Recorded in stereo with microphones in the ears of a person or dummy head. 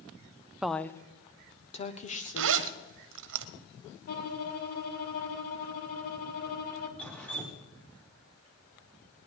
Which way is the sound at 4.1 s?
55° left (ahead or behind).